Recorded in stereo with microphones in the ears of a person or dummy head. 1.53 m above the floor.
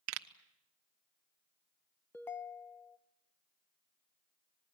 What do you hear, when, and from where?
0.1 s a pop: 70° right (ahead or behind), 1.0 m
2.1 s a ringtone: 10° left (ahead or behind), 0.8 m